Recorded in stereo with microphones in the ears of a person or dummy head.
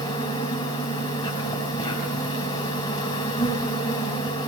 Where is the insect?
25° left (ahead or behind), 5.5 m.